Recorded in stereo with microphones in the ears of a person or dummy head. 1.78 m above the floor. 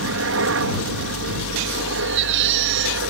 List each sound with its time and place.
0.0 s a helicopter: 65° right (ahead or behind)
2.0 s a baby crying: 60° right (ahead or behind)